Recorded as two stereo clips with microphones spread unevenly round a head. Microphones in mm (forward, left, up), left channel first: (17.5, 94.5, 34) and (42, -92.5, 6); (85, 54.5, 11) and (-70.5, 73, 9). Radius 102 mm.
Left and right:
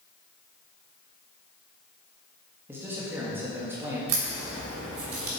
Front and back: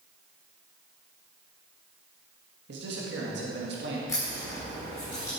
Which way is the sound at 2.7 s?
160° right.